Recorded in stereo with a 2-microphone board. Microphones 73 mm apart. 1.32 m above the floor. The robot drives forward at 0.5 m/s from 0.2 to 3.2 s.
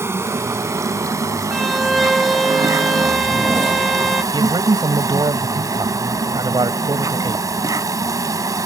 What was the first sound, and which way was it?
An insect, 40° right (ahead or behind).